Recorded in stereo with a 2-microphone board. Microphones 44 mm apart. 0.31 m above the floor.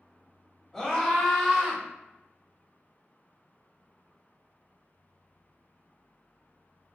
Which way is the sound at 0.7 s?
20° left (ahead or behind).